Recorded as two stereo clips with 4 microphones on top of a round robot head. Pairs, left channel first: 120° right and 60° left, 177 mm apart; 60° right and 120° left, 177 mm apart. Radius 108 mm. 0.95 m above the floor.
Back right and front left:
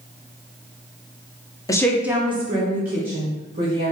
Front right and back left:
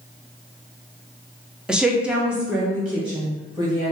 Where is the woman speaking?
155° right, 0.7 m; by 3.9 s 35° left, 1.8 m.